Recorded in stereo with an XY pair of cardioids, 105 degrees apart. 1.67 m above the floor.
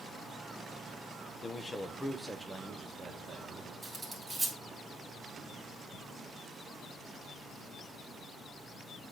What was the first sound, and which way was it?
A man speaking, 35° left.